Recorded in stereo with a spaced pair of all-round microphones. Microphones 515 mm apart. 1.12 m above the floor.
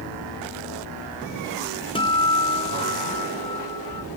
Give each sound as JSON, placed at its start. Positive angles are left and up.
{"t": 1.9, "sound": "a guitar", "side_deg": 10, "distance_m": 0.6}